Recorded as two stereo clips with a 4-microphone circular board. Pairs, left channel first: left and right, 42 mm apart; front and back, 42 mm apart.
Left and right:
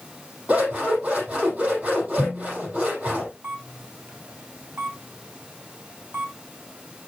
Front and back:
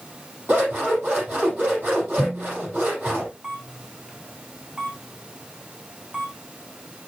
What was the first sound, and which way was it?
Scissors, 150° right.